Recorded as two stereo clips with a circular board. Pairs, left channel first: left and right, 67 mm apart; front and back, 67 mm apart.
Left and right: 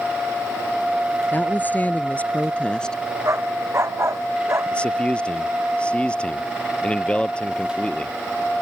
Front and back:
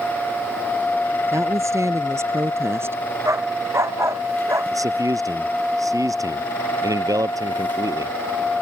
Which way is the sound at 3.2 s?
135° right.